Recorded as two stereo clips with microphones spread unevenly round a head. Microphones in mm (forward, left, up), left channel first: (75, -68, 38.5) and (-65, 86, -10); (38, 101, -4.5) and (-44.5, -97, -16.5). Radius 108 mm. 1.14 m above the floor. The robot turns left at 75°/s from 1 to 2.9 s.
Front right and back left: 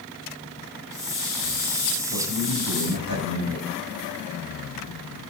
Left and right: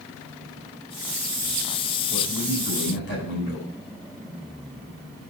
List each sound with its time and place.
2.1 s a man speaking: 170° left, 5 m; by 3.7 s 110° left, 5 m